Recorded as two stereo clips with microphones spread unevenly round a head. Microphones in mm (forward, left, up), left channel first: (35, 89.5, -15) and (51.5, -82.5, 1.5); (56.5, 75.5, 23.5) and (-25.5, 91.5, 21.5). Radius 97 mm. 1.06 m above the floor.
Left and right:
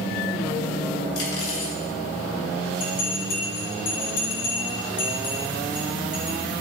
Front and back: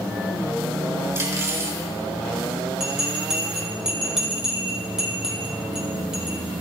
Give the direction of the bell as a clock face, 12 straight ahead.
9 o'clock.